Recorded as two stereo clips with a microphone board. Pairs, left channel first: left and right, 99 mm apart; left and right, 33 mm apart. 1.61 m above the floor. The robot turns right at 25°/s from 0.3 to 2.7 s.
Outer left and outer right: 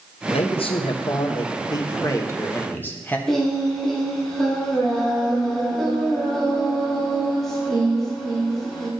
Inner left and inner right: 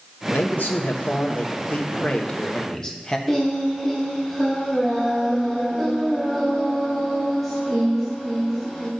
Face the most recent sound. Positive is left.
turn(degrees=5)  # may be behind; listen again after turning